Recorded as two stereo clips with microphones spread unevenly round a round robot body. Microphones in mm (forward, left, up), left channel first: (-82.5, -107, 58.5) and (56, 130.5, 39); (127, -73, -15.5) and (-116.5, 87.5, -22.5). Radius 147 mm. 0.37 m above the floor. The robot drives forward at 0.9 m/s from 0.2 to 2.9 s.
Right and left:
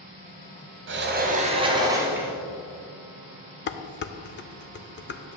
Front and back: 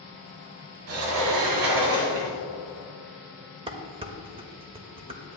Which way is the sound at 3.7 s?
150° right.